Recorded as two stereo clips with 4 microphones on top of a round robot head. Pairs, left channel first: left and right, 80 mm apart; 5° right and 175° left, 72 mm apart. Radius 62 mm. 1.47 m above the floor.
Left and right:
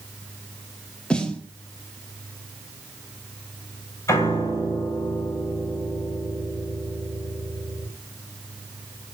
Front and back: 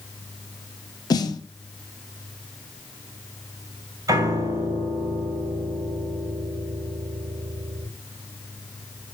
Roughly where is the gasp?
I don't hear a gasp.